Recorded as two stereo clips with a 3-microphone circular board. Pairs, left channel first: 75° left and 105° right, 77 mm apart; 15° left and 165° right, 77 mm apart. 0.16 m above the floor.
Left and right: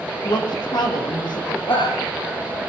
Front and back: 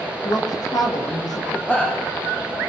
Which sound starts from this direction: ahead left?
A woman speaking, at 0.2 s.